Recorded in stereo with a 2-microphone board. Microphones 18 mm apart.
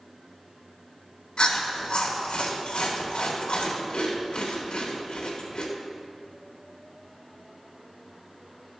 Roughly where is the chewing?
Left.